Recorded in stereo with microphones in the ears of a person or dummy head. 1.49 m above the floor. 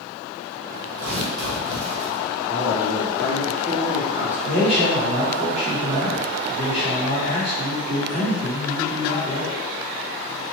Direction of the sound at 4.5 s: 45° right (ahead or behind).